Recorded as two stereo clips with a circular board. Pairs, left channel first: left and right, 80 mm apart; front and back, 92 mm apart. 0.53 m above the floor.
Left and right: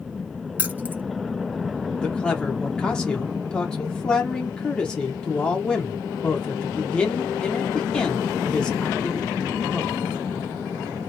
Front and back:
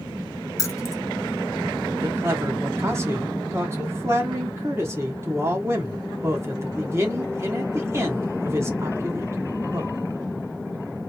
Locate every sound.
0.6 s keys jangling: 35° right, 0.6 m
2.0 s a man speaking: 160° left, 0.9 m